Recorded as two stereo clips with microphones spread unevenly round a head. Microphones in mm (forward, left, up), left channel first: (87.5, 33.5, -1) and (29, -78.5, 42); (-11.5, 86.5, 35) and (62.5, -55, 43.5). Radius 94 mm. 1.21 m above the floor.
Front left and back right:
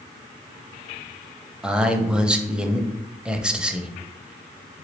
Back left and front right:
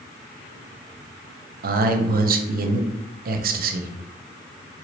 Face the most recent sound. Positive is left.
turn(degrees=-35)